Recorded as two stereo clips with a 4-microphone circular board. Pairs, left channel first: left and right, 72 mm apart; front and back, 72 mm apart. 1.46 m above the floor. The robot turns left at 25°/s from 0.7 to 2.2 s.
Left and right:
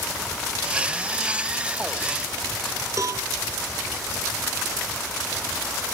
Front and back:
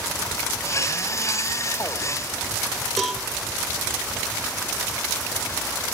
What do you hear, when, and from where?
3.0 s a cowbell: 90° right, 1.6 m